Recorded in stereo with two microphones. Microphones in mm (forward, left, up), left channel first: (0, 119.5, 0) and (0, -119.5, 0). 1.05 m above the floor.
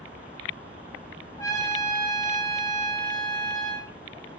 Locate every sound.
1.4 s a trumpet: 15° left (ahead or behind), 0.7 m